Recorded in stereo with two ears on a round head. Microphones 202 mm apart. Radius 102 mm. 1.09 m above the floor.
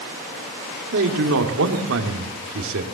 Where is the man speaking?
70° right (ahead or behind), 2.5 m.